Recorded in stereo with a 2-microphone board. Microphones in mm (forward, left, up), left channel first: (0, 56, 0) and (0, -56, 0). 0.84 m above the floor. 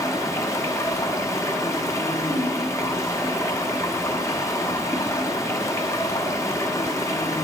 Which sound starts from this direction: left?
Running water, at 0.0 s.